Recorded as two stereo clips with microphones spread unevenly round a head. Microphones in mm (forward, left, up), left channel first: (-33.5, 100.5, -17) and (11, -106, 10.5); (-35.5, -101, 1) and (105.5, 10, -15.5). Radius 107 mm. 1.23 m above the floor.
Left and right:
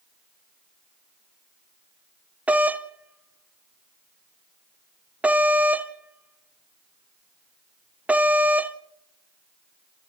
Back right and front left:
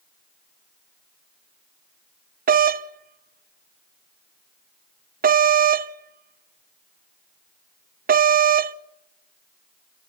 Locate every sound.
2.5 s a doorbell: 10° left, 0.8 m